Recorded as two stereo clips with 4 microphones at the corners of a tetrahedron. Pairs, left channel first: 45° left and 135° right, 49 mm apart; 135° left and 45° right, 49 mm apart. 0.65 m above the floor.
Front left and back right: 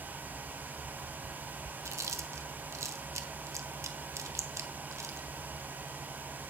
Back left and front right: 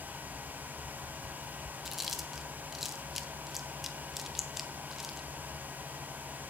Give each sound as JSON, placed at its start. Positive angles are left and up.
{"t": 1.9, "sound": "chewing", "azimuth_deg": -130, "distance_m": 0.8}